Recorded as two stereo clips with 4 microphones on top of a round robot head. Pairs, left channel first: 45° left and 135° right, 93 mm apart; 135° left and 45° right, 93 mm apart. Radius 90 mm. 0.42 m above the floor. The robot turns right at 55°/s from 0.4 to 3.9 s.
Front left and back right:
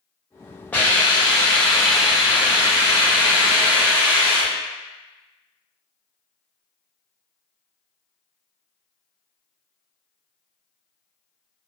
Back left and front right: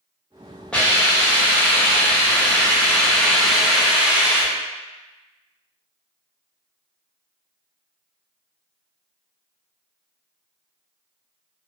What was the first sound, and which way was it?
A hiss, 75° left.